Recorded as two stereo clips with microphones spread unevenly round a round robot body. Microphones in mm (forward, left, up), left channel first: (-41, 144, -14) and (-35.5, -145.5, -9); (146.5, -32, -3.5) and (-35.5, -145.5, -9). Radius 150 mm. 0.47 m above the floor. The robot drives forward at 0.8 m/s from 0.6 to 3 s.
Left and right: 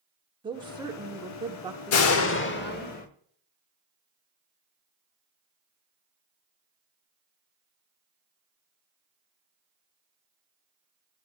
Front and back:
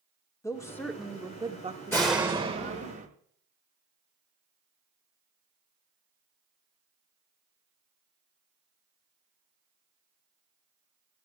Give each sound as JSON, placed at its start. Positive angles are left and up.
{"t": 0.4, "sound": "a woman speaking", "azimuth_deg": -30, "distance_m": 1.2}
{"t": 1.9, "sound": "a door slam", "azimuth_deg": 115, "distance_m": 0.8}